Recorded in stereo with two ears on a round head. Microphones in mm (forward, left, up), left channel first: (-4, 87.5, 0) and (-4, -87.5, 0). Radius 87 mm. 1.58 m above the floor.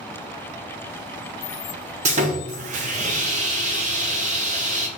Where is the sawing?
40° right (ahead or behind), 0.7 m.